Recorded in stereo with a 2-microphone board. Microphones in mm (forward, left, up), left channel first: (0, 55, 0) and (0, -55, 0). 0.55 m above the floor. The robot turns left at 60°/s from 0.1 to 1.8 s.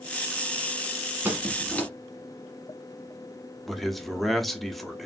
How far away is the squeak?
About 1.2 m.